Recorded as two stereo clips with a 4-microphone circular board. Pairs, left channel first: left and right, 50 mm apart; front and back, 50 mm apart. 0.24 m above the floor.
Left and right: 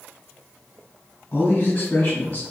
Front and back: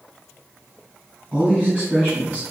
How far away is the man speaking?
About 2.0 m.